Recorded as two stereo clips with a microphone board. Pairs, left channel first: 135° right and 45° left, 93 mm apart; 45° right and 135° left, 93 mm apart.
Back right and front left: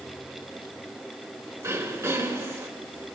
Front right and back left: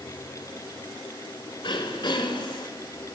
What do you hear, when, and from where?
1.6 s throat clearing: 10° right, 3 m